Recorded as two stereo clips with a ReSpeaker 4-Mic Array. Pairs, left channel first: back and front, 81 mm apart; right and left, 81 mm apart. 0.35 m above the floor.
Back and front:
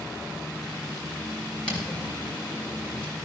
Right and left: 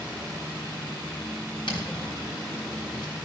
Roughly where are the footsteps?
Right.